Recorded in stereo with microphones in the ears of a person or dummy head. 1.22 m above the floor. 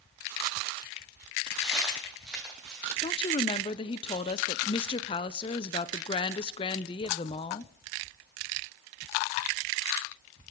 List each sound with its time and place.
1.6 s footsteps: 5° right (ahead or behind), 3.5 m
3.0 s a woman speaking: 25° left (ahead or behind), 0.5 m